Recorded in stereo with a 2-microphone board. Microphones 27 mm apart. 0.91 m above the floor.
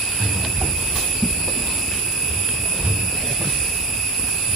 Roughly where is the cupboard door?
Right.